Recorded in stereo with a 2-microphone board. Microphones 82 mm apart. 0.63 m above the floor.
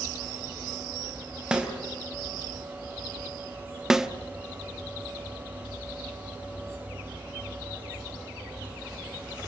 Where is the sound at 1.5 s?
10° right (ahead or behind), 3 m.